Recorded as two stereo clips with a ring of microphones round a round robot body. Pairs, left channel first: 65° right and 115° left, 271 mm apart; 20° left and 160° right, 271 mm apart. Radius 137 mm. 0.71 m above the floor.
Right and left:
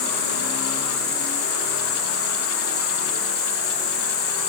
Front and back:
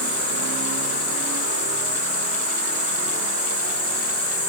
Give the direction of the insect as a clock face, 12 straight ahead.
12 o'clock.